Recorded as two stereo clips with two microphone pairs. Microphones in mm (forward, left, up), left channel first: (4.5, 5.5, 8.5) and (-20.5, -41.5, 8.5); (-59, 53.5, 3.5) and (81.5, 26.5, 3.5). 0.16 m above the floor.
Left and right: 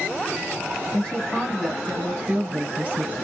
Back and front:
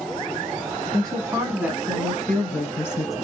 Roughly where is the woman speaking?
Ahead.